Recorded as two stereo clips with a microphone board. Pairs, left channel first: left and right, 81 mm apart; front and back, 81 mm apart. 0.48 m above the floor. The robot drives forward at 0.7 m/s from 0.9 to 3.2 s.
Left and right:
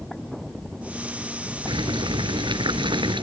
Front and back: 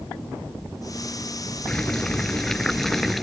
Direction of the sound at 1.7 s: 80° right.